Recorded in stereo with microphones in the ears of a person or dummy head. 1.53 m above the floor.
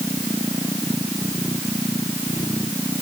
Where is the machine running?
10° left (ahead or behind).